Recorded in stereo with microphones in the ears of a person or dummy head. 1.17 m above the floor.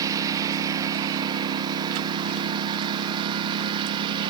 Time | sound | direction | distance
0.0 | a lawn mower | 20° right (ahead or behind) | ?